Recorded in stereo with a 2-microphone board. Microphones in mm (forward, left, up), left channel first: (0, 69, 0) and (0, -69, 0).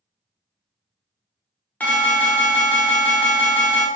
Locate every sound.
1.8 s an alarm: 10° left (ahead or behind), 0.7 m